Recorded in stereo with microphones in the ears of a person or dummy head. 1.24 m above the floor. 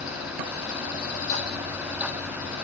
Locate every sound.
Only background noise.